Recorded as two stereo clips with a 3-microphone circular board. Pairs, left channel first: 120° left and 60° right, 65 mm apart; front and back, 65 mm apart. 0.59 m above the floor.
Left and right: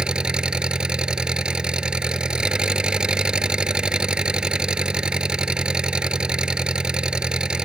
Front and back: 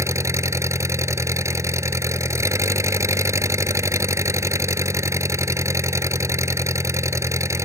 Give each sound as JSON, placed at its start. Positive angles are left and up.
{"t": 0.0, "sound": "an engine running", "azimuth_deg": -135}